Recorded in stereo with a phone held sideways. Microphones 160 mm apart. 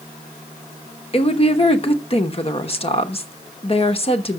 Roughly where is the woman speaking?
Left.